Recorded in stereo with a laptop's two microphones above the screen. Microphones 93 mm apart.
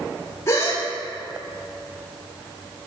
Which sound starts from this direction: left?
A gasp, at 0.5 s.